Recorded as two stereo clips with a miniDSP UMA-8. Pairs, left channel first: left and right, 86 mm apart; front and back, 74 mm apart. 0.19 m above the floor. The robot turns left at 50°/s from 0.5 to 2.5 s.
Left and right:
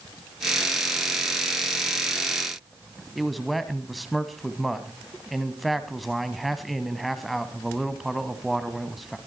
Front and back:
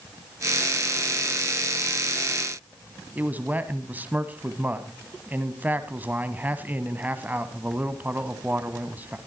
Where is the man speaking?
Straight behind, 1.4 m.